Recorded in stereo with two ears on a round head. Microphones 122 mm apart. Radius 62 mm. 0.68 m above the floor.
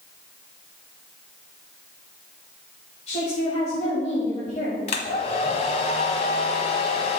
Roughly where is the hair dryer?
Left.